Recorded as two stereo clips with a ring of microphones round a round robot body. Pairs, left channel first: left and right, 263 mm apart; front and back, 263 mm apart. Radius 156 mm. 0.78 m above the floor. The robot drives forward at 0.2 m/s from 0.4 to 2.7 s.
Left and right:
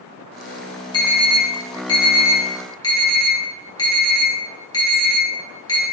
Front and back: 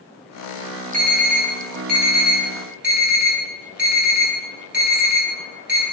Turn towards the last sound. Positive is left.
turn(degrees=160)